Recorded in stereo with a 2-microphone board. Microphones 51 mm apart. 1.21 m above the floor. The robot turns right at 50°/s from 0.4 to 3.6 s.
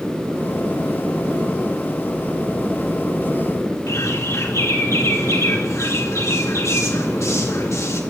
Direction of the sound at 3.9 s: 80° left.